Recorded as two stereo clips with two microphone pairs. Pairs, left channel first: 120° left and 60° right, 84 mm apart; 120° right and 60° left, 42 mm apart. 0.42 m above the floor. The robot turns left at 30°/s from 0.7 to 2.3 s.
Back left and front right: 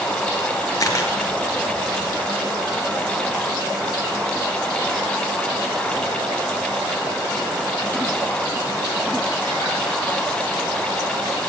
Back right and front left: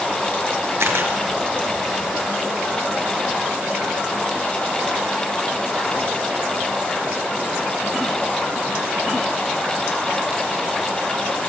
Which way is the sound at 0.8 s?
75° left.